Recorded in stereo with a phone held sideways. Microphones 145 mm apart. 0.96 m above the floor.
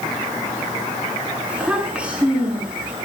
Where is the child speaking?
10° right (ahead or behind), 7 m.